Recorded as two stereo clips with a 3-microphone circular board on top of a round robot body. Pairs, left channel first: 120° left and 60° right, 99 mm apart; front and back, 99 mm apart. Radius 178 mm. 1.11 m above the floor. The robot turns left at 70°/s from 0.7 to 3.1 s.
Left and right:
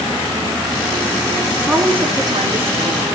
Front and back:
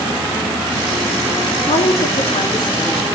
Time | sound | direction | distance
1.7 | a woman speaking | 30° left | 4.5 m